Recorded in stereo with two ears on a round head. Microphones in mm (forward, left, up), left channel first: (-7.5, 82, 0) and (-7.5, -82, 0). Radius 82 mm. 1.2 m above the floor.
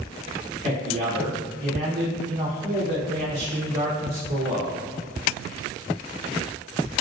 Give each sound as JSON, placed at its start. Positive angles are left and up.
{"t": 0.6, "sound": "a man speaking", "side_deg": -40, "distance_m": 0.7}